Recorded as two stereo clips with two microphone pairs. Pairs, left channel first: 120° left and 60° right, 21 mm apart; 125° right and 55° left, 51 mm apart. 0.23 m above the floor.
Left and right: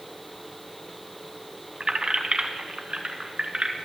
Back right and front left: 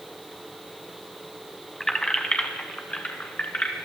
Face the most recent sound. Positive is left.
turn(degrees=-80)